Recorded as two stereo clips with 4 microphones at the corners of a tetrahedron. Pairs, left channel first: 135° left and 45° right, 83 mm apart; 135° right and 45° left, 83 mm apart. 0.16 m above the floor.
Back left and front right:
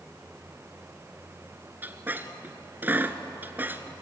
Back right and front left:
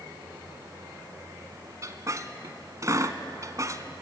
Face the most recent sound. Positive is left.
turn(degrees=15)